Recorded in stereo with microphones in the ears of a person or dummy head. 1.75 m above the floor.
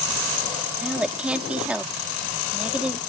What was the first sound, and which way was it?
A woman speaking, 5° right (ahead or behind).